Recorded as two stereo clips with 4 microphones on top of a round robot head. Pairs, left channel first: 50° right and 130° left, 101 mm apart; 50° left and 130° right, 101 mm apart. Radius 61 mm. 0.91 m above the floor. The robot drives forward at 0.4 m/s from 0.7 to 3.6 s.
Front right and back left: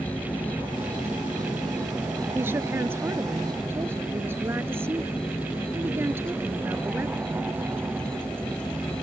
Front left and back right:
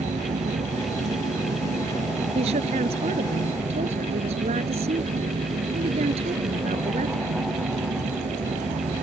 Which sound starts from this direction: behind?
A woman speaking, at 2.4 s.